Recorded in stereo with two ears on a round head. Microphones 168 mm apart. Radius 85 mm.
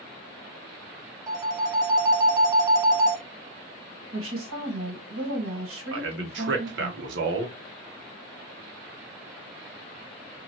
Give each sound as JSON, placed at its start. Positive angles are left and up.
{"t": 1.3, "sound": "a phone ringing", "side_deg": -20, "distance_m": 0.5}
{"t": 4.1, "sound": "a woman speaking", "side_deg": -80, "distance_m": 1.6}
{"t": 5.9, "sound": "a man speaking", "side_deg": -65, "distance_m": 0.9}